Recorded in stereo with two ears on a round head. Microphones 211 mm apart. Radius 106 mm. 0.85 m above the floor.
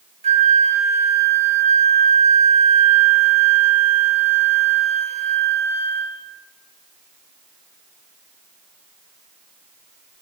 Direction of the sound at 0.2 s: 30° right (ahead or behind).